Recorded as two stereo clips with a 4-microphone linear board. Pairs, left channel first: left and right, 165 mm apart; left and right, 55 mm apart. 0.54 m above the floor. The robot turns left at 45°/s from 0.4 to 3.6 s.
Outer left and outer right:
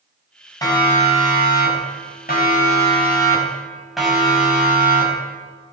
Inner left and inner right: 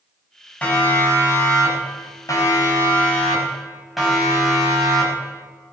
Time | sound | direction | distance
0.6 | a siren | 20° left (ahead or behind) | 5.5 m